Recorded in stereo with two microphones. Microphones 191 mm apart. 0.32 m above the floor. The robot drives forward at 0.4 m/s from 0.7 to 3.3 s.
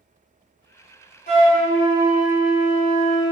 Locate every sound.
1.3 s a flute: 50° left (ahead or behind), 1.5 m; by 3.3 s 65° left (ahead or behind), 1.3 m